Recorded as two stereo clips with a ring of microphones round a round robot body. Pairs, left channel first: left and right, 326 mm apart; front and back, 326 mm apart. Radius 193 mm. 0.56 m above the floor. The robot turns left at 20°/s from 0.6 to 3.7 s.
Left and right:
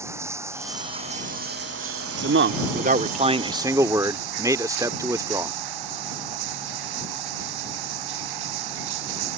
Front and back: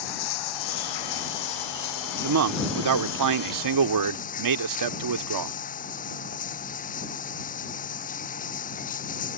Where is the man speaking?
140° right; by 5.5 s 170° right.